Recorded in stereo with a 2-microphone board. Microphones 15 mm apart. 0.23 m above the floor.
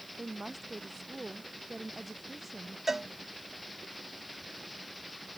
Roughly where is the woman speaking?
Centre.